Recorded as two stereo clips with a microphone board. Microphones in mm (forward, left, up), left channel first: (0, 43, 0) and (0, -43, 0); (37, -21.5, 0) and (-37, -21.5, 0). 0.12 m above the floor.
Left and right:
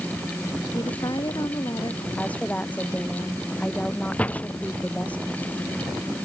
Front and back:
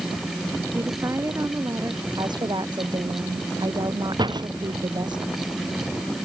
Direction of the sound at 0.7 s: 130° left.